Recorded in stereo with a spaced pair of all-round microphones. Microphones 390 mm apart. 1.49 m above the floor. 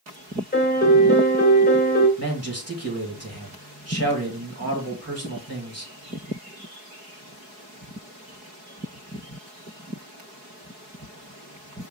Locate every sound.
0.5 s a piano: 25° left (ahead or behind), 1.3 m
2.2 s a man speaking: 40° right (ahead or behind), 1.8 m